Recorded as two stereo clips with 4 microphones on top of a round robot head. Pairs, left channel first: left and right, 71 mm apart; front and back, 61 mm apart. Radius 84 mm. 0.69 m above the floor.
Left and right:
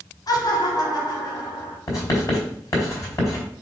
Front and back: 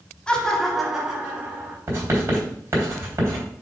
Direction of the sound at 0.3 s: 70° left.